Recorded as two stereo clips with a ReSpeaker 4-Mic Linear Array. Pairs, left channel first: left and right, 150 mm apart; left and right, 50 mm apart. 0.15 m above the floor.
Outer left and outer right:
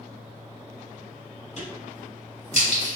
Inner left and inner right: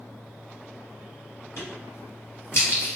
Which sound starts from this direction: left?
A crack, at 1.6 s.